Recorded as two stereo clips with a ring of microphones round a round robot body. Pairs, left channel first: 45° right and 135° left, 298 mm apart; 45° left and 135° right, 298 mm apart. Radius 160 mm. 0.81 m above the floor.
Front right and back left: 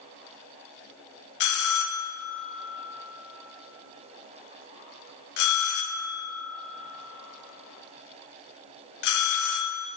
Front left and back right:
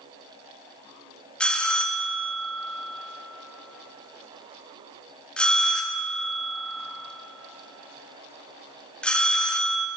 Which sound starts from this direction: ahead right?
A bell, at 1.4 s.